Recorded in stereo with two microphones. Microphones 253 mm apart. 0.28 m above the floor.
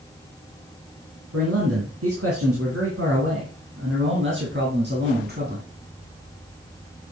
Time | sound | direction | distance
1.3 | a man speaking | 70° right (ahead or behind) | 3.5 m